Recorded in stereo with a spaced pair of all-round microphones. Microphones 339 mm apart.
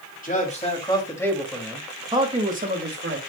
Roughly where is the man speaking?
Left.